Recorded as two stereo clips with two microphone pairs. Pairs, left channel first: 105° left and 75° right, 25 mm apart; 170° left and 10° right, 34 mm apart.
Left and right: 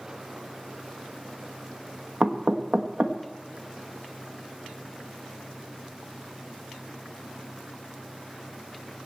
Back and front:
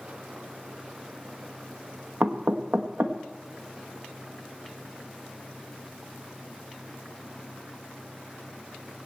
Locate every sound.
2.2 s knocking: 30° right, 1.3 m